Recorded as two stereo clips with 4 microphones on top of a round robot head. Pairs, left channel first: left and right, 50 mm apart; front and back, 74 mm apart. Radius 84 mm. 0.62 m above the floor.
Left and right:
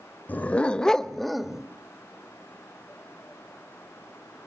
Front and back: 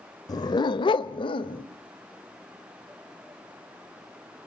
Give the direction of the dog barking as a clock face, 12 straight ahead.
11 o'clock.